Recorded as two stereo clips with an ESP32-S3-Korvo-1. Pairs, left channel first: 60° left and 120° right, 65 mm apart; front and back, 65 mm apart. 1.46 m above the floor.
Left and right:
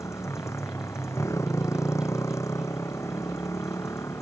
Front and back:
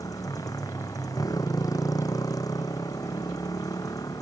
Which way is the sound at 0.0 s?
20° left.